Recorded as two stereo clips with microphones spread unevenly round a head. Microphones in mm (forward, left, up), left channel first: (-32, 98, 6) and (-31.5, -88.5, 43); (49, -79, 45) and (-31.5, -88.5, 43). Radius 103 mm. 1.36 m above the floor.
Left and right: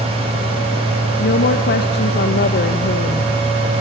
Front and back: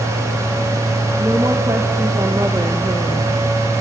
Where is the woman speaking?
120° left, 1.7 m.